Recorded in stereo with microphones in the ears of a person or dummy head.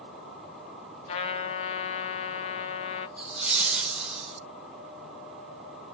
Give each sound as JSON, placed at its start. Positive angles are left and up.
{"t": 1.1, "sound": "a trumpet", "side_deg": 30, "distance_m": 0.8}
{"t": 3.2, "sound": "laughter", "side_deg": 0, "distance_m": 1.1}